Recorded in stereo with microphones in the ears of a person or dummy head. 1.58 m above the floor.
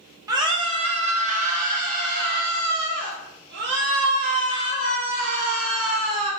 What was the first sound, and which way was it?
A scream, 25° right (ahead or behind).